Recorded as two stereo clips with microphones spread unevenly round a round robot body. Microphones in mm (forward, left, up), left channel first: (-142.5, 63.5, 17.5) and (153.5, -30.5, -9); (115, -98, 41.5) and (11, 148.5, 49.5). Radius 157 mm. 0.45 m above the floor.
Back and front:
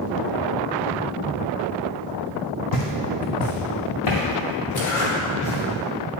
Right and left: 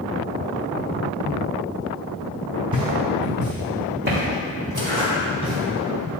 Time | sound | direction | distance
2.7 | footsteps | 175° right | 1.4 m
4.8 | a zipper | 170° left | 2.5 m